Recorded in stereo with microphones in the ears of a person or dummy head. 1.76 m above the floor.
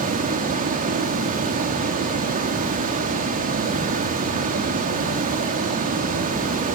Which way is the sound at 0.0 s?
40° right (ahead or behind).